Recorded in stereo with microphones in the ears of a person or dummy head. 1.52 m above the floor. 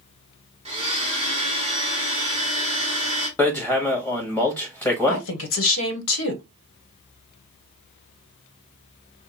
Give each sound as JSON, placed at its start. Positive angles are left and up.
{"t": 0.7, "sound": "a blender", "side_deg": -30, "distance_m": 1.1}
{"t": 3.4, "sound": "hammering", "side_deg": 10, "distance_m": 1.4}
{"t": 5.1, "sound": "a woman speaking", "side_deg": 80, "distance_m": 1.0}